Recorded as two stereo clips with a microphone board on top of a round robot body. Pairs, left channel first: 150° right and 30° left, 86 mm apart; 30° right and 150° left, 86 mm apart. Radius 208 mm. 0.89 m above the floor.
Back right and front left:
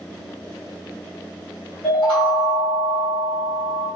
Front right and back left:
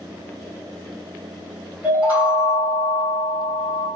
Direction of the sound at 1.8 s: 145° right.